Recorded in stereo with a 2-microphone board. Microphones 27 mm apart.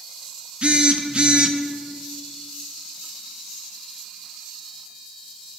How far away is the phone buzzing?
About 0.5 m.